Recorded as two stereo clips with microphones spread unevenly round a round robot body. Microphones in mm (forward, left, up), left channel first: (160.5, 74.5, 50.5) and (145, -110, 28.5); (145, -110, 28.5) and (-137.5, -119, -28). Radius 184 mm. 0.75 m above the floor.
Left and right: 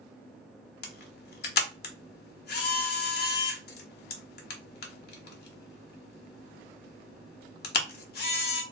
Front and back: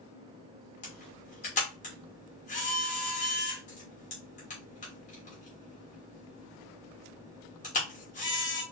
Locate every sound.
0.8 s a camera shutter: 75° left, 0.6 m